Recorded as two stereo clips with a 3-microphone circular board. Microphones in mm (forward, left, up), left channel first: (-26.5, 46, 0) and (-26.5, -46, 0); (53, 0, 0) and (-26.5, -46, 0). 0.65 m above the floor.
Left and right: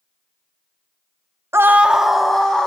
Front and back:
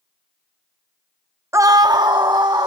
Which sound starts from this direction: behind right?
A scream, at 1.5 s.